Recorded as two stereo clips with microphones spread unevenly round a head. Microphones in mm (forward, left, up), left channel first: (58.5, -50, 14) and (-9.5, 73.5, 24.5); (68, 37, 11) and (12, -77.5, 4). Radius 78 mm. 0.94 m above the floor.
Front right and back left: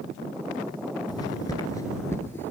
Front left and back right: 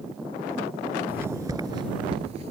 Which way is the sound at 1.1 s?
55° right.